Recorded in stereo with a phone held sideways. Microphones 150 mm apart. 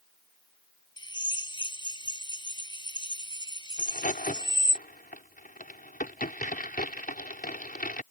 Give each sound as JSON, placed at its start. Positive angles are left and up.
{"t": 1.0, "sound": "a drill", "side_deg": 30}
{"t": 3.8, "sound": "a crack", "side_deg": 75}